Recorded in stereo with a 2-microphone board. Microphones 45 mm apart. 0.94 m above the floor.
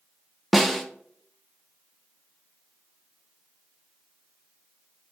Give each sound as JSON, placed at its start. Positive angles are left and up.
{"t": 0.5, "sound": "a snare drum", "side_deg": 0, "distance_m": 0.9}